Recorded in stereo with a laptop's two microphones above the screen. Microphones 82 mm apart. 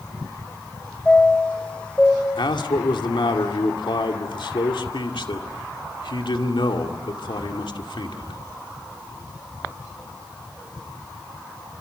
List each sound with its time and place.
1.1 s a chime: 15° left (ahead or behind), 2.5 m
2.4 s a man speaking: 80° left, 2 m